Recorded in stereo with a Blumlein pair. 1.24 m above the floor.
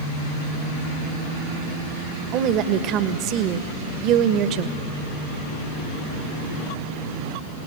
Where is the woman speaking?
35° right, 1.3 m.